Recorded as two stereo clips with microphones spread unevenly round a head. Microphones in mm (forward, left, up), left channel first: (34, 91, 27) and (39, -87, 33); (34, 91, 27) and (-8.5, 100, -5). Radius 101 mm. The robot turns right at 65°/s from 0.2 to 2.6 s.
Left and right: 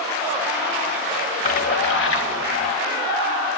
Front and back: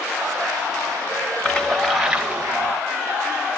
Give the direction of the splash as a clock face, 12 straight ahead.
11 o'clock.